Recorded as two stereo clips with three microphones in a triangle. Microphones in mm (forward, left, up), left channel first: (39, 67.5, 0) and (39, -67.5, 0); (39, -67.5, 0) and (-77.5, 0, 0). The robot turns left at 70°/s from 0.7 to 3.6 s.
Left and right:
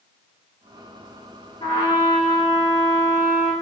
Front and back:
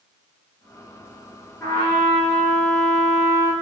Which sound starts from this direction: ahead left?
A trumpet, at 1.6 s.